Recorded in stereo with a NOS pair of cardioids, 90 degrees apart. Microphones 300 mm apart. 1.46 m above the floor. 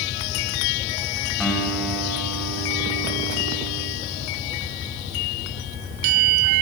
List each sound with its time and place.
1.4 s a guitar: straight ahead, 7 m